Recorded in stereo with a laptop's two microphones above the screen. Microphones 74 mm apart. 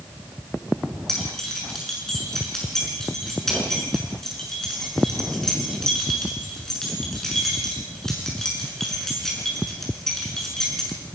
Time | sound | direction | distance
1.1 | keys jangling | 5° left (ahead or behind) | 7.5 m